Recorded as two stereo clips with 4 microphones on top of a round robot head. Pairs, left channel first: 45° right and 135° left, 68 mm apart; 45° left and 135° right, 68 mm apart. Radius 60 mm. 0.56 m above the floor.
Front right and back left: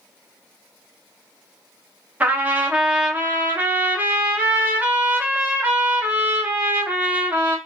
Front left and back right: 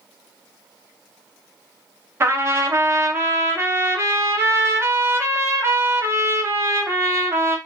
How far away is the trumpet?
About 0.7 m.